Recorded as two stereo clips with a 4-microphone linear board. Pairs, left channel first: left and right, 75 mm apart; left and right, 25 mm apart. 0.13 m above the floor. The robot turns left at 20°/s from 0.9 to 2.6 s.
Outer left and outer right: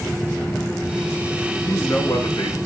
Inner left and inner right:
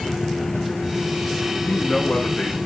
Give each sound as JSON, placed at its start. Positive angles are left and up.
{"t": 1.6, "sound": "a man speaking", "side_deg": 40, "distance_m": 5.5}